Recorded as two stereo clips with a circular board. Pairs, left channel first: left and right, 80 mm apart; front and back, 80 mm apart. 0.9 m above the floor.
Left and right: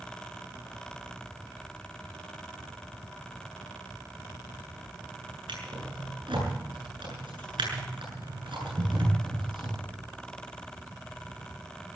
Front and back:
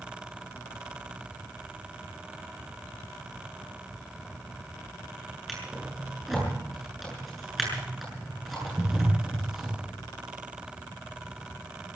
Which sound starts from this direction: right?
A drawer, at 5.5 s.